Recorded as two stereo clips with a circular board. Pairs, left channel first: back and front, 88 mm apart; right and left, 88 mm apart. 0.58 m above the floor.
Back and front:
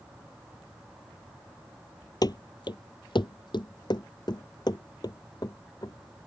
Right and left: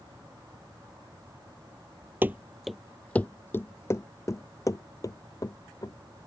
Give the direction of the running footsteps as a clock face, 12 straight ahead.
7 o'clock.